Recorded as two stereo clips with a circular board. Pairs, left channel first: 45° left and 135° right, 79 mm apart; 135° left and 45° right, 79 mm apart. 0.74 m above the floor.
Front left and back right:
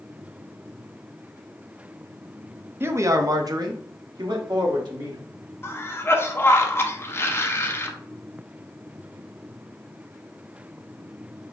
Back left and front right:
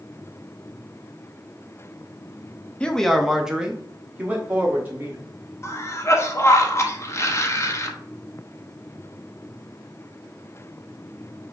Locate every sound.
2.8 s a man speaking: 160° right, 0.5 m; by 5.2 s 110° right, 1.6 m
5.6 s a cough: 95° left, 0.8 m